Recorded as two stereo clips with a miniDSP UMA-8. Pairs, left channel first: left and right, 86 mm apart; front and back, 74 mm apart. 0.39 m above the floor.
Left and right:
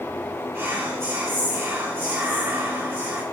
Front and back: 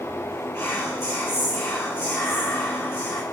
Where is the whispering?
40° right, 1.8 m.